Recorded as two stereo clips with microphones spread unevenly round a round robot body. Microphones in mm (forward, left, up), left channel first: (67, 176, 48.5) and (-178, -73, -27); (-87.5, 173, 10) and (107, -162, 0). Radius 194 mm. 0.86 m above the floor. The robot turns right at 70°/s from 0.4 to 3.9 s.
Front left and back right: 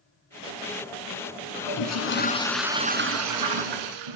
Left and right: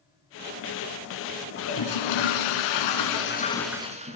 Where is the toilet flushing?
60° left, 3 m; by 4.2 s 135° right, 3 m.